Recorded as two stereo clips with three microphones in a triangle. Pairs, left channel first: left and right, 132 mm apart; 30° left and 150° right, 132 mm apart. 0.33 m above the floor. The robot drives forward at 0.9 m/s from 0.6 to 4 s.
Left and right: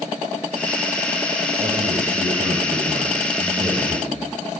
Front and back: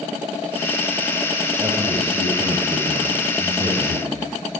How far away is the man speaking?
About 2.0 m.